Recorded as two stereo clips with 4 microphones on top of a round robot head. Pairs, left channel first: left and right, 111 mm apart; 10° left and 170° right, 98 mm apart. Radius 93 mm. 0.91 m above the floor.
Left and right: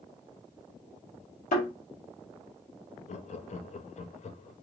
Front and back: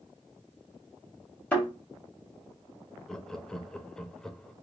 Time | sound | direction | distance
1.5 | a thud | 85° left | 1.8 m
3.1 | laughter | 90° left | 0.7 m